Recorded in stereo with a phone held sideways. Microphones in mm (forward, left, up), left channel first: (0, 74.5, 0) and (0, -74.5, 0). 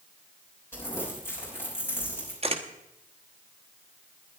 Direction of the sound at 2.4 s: 45° right (ahead or behind).